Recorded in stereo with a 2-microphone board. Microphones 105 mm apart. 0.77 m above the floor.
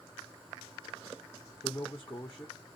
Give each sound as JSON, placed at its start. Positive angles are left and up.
{"t": 1.6, "sound": "a man speaking", "side_deg": 25, "distance_m": 1.2}